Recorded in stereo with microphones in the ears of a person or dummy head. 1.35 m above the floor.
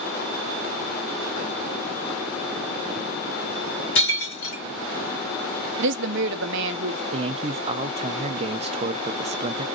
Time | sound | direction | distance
4.0 | breaking glass | 65° left (ahead or behind) | 3.5 m
5.8 | a woman speaking | 75° right (ahead or behind) | 0.7 m
7.1 | a man speaking | 40° right (ahead or behind) | 0.7 m